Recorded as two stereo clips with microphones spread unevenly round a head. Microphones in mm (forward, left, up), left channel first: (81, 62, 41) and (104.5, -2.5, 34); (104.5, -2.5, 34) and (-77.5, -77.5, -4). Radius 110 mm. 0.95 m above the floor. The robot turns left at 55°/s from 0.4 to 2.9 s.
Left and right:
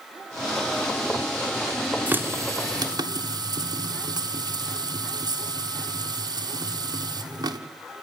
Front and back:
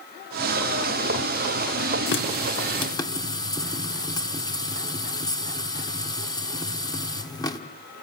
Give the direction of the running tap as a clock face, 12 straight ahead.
12 o'clock.